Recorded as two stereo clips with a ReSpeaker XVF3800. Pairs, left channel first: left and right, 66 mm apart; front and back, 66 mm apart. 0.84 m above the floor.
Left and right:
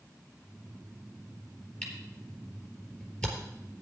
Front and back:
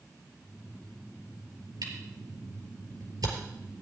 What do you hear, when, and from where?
1.8 s a camera shutter: 165° left, 4 m